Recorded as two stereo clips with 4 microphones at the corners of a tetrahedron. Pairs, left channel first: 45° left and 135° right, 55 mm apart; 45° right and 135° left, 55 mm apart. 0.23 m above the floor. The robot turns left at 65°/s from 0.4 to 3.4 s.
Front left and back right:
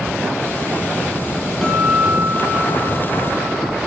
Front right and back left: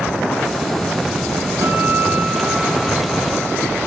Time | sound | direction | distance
1.6 | a guitar | 130° left | 3.5 m